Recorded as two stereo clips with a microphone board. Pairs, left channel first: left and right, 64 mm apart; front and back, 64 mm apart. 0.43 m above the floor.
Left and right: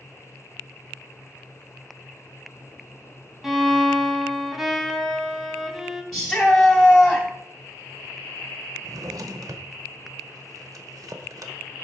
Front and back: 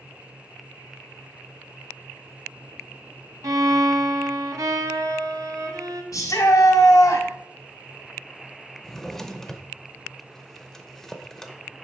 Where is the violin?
175° right, 1.0 m.